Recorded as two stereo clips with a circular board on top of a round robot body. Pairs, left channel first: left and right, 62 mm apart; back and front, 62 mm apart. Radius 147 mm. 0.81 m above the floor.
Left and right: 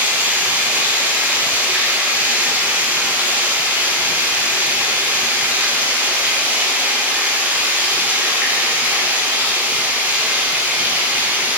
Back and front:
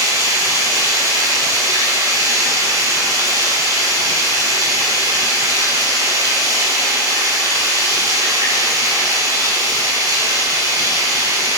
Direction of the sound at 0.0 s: 25° right.